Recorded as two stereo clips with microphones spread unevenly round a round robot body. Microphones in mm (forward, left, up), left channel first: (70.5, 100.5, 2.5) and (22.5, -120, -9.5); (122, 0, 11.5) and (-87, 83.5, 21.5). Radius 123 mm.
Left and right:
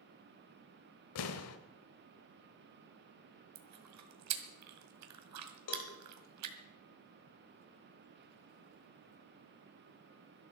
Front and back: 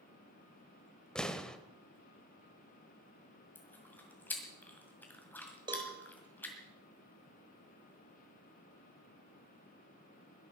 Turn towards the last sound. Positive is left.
turn(degrees=90)